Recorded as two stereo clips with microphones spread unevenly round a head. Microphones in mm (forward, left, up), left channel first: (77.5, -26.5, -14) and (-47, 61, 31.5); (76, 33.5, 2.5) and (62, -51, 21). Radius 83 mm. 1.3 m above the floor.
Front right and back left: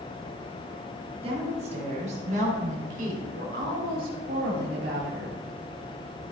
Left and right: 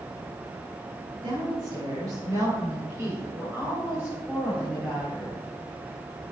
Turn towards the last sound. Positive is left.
turn(degrees=175)